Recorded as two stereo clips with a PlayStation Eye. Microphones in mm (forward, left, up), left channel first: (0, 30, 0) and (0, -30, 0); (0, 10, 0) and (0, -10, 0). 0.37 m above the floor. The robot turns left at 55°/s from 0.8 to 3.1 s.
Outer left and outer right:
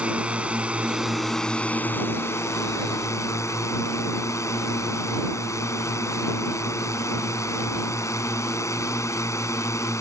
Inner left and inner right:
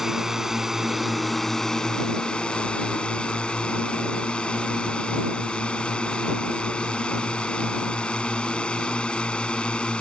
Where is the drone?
155° right; by 10.0 s 75° left.